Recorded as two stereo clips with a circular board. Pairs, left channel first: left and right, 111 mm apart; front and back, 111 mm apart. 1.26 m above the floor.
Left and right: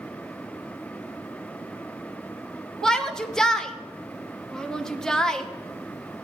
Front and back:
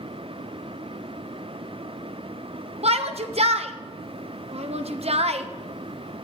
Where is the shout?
175° left, 1.0 m.